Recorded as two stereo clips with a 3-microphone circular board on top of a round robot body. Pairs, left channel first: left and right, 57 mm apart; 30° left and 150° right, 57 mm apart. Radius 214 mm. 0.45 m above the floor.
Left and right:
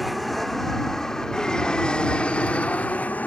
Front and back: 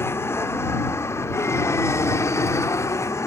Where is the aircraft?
Straight ahead; by 3.3 s 30° left.